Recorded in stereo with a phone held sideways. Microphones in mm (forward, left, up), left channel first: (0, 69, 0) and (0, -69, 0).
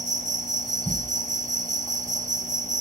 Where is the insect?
60° right (ahead or behind), 1.1 m.